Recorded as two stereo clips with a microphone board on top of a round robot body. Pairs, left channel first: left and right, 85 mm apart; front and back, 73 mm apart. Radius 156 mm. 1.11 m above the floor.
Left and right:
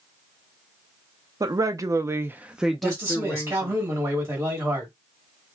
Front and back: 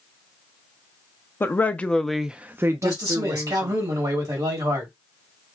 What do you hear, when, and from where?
1.4 s a woman speaking: 55° right, 0.7 m; by 3.8 s 155° left, 0.9 m
2.8 s a man speaking: 155° right, 1.6 m